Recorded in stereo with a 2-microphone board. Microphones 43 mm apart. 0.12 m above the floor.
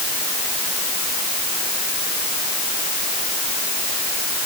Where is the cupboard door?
No cupboard door in this recording.